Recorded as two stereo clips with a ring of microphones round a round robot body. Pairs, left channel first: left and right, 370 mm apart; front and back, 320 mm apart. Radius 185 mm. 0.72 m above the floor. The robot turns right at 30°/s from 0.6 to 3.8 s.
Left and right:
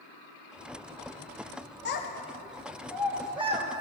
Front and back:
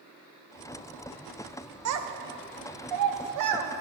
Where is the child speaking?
150° left, 0.8 m; by 3.8 s 155° right, 0.8 m.